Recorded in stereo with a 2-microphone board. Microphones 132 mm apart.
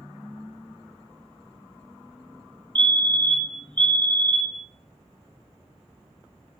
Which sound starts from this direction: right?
A fire alarm, at 2.8 s.